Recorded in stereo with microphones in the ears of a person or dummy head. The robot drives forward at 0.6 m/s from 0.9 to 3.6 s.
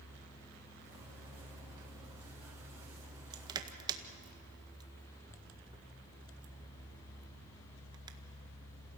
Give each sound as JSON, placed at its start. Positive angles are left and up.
{"t": 3.3, "sound": "crushing", "side_deg": -25, "distance_m": 1.8}